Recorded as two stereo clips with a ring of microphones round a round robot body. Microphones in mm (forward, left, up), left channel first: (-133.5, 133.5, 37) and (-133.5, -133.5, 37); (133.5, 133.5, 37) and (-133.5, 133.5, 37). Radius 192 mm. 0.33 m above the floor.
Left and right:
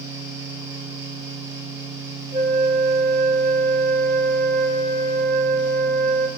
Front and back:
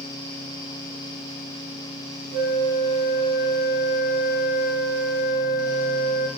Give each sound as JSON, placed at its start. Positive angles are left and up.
{"t": 2.3, "sound": "a flute", "azimuth_deg": -155, "distance_m": 0.8}